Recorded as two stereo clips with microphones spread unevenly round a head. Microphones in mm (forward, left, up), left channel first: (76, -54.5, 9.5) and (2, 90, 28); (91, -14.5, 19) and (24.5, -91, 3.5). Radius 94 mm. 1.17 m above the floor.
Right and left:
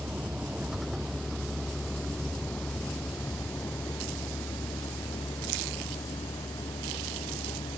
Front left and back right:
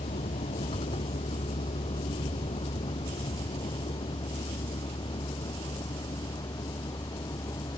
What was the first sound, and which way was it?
A vehicle, 35° left.